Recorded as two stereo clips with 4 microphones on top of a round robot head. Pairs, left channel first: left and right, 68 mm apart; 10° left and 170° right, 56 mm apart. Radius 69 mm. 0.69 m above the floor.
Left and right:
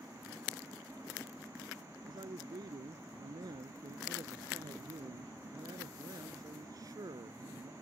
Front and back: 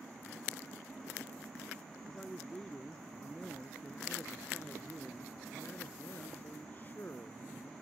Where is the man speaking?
70° right; by 7.7 s 50° right.